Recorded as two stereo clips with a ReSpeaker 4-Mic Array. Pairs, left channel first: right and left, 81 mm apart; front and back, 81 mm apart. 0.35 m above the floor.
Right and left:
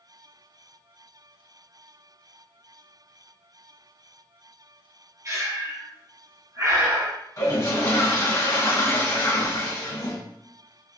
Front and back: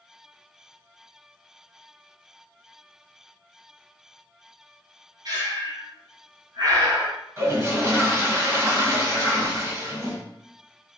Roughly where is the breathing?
Behind left.